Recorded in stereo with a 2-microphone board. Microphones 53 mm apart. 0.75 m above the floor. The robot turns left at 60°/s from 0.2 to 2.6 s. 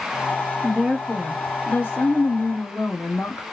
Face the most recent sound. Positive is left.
turn(degrees=80)